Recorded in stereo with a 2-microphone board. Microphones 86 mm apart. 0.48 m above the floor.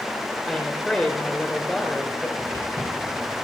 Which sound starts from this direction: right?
Footsteps, at 2.4 s.